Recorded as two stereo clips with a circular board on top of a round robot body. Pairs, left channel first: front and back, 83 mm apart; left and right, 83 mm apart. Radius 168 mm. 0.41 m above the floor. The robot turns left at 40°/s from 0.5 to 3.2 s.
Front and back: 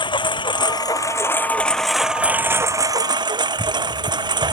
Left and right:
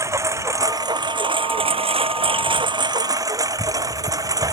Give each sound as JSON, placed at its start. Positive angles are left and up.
{"t": 0.0, "sound": "a lawn mower", "azimuth_deg": -35}